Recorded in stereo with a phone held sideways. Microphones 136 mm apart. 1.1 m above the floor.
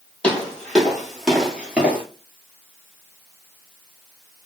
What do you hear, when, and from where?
0.2 s footsteps: 10° left (ahead or behind), 1.8 m; by 2.0 s 15° right (ahead or behind), 1.1 m